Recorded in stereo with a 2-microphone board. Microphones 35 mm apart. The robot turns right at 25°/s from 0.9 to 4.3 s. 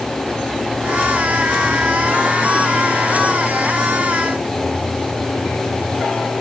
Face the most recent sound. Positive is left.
No sound to turn to.